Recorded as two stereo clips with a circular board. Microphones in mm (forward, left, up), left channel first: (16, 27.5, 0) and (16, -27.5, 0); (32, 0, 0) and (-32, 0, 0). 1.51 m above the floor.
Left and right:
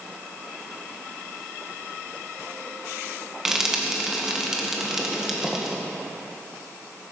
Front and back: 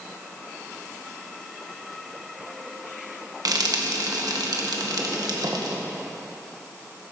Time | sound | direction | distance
3.5 | frying | 170° right | 1.8 m